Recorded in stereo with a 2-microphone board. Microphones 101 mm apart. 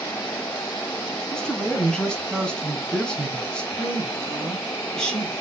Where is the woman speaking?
10° left (ahead or behind), 2.5 m.